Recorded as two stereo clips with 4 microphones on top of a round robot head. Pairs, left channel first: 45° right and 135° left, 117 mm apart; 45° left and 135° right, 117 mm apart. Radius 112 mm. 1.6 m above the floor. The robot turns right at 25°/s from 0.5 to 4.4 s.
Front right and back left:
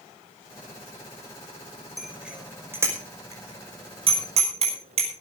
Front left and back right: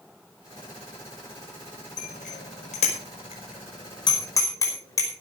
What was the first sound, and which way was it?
A bicycle bell, 45° left.